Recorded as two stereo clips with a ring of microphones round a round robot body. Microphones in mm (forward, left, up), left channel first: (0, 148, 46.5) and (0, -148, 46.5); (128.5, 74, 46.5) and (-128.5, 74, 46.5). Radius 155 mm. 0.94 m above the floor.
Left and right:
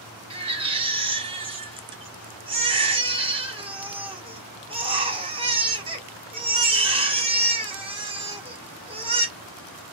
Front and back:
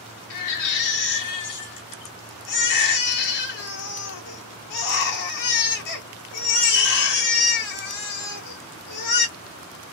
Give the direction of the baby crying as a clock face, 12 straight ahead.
1 o'clock.